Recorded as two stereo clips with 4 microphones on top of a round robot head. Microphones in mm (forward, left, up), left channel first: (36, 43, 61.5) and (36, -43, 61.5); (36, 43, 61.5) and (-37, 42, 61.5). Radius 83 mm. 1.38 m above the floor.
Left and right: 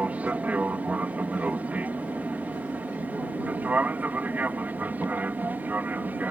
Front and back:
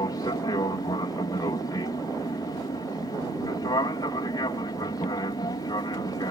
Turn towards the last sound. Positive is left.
turn(degrees=-25)